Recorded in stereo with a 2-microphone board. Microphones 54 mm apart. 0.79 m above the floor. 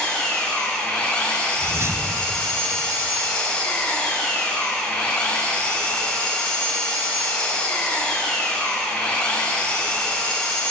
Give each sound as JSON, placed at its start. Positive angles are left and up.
{"t": 0.0, "sound": "an engine running", "side_deg": 20, "distance_m": 2.5}
{"t": 1.6, "sound": "a whoosh", "side_deg": -50, "distance_m": 0.9}